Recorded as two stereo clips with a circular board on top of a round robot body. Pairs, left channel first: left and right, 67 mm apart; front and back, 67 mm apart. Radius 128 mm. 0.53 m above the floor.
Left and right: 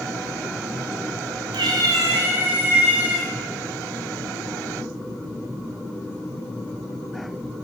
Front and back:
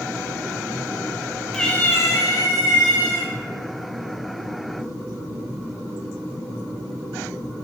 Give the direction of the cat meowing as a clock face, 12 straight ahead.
3 o'clock.